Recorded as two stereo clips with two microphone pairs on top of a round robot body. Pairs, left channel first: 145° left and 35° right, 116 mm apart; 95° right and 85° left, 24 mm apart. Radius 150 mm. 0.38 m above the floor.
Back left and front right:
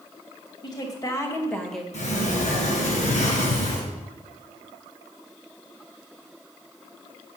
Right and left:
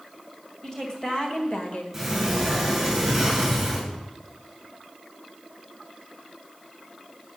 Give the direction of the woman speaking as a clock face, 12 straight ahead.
6 o'clock.